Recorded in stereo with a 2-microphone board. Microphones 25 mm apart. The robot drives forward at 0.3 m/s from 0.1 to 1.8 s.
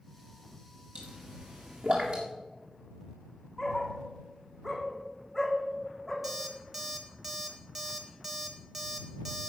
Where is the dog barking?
Centre (ahead or behind), 2.5 m.